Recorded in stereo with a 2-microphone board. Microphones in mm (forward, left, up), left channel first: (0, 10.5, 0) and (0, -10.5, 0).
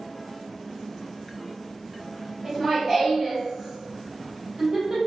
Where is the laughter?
30° right (ahead or behind), 2.0 m.